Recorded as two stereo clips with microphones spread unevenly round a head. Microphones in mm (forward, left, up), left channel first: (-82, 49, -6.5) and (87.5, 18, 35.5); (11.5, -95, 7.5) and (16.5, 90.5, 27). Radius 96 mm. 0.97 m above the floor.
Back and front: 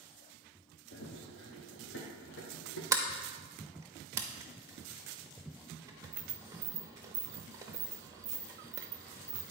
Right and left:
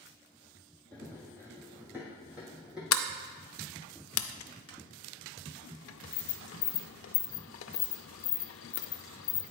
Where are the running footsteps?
150° left, 1.6 m; by 2.8 s 170° left, 2.5 m.